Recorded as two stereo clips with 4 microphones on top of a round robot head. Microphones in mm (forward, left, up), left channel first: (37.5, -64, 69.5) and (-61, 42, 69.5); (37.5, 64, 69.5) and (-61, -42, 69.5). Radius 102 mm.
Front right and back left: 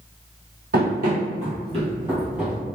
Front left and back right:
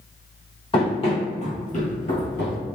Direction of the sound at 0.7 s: 105° left.